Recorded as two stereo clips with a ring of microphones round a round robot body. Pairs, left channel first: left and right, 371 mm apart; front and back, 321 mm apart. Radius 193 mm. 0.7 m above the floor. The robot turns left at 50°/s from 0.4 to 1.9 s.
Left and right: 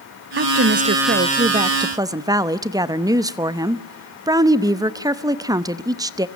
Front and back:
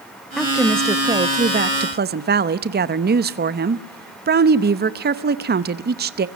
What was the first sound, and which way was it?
A woman speaking, 85° right.